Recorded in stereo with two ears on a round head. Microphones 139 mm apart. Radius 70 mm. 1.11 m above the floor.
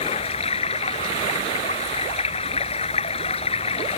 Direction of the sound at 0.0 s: 40° left (ahead or behind).